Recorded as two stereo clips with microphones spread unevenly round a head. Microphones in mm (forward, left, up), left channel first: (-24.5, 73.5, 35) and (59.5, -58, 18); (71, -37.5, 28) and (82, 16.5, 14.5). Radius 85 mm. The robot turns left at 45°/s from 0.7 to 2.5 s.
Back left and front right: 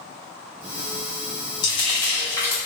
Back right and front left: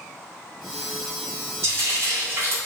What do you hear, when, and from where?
1.6 s frying: 110° left, 0.9 m; by 2.5 s 70° left, 0.9 m